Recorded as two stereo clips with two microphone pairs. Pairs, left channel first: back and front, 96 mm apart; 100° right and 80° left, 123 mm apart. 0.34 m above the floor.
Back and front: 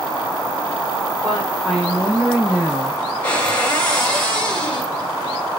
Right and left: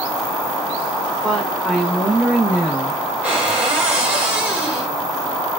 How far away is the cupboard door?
About 1.2 m.